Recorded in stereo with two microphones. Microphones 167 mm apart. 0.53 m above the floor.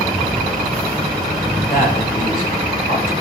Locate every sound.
1.7 s a man speaking: 70° left (ahead or behind), 3.5 m; by 3.1 s 60° left (ahead or behind), 3.5 m